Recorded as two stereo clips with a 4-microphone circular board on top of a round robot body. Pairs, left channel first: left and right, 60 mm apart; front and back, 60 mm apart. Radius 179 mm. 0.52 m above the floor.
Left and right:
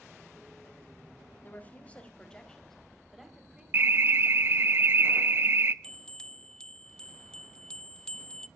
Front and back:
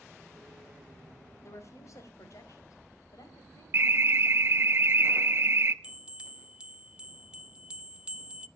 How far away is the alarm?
About 1.0 m.